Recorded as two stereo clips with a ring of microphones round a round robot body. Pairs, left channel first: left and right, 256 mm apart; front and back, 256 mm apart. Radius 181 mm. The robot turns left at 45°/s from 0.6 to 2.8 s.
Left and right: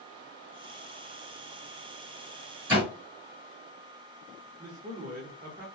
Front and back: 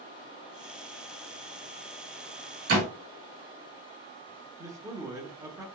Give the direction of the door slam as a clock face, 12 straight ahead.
6 o'clock.